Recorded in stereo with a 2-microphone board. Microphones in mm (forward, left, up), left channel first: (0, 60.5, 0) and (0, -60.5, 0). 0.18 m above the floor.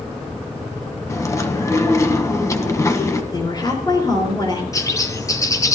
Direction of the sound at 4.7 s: 25° left (ahead or behind).